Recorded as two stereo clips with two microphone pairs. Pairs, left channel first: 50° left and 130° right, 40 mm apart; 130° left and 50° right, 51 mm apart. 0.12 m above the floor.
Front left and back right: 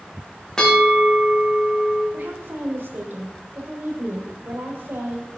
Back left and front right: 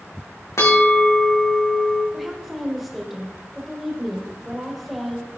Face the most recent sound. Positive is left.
turn(degrees=-140)